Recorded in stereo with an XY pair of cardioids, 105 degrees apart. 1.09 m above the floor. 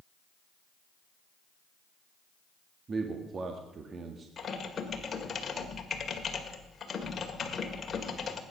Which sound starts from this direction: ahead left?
Typing on a keyboard, at 4.4 s.